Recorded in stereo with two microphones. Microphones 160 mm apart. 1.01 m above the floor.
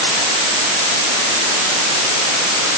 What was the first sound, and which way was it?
Only background noise.